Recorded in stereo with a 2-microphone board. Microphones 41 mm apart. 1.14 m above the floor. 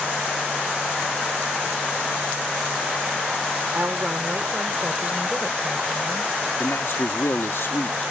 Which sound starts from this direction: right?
A woman speaking, at 3.7 s.